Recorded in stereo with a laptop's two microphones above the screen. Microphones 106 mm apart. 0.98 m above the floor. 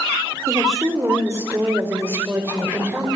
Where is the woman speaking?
30° right (ahead or behind), 3.5 m; by 3.1 s 20° right (ahead or behind), 4.5 m.